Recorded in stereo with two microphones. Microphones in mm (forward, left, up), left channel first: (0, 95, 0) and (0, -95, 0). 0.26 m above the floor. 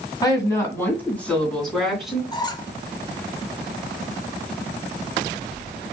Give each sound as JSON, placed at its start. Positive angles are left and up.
{"t": 0.2, "sound": "a woman speaking", "side_deg": 20, "distance_m": 2.0}
{"t": 2.3, "sound": "a squeak", "side_deg": 20, "distance_m": 0.6}